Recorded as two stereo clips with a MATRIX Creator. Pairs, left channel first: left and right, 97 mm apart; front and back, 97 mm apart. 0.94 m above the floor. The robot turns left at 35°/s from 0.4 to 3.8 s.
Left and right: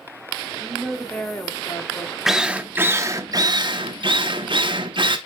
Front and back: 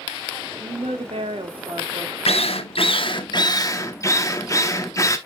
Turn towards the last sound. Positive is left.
turn(degrees=-60)